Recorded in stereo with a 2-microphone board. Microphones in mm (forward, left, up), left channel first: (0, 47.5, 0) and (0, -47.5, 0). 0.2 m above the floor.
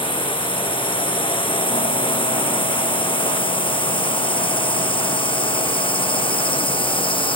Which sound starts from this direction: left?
A drone, at 0.0 s.